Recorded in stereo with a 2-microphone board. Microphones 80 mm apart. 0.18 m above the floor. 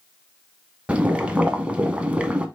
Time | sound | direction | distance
0.9 | boiling | 15° right (ahead or behind) | 0.7 m